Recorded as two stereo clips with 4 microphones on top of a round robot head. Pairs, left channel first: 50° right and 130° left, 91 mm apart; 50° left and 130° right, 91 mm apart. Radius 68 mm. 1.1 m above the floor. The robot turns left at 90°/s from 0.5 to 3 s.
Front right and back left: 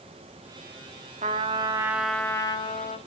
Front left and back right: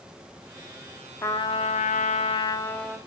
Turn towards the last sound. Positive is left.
turn(degrees=-45)